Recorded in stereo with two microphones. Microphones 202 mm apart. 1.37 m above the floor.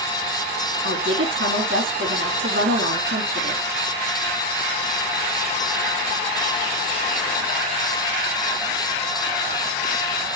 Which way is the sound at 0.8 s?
75° right (ahead or behind).